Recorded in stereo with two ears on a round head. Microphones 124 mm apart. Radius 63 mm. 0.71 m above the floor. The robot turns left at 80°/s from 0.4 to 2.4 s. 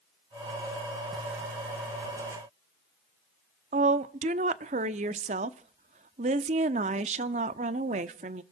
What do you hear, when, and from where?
3.7 s a woman speaking: 55° right (ahead or behind), 1.0 m